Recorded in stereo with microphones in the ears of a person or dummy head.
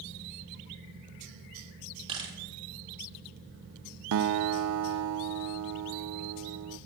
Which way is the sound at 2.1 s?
30° right (ahead or behind).